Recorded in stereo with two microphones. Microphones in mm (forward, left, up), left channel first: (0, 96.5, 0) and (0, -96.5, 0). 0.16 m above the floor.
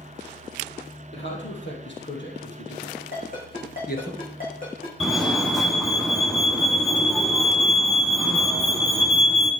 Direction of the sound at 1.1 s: 70° left (ahead or behind).